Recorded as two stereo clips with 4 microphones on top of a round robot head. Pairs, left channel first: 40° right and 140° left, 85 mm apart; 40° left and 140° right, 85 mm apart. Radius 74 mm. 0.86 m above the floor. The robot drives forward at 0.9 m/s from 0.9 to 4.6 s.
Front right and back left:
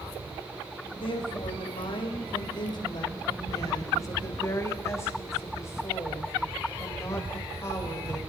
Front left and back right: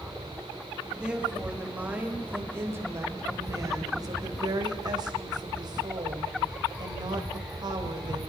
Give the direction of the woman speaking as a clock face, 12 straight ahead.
2 o'clock.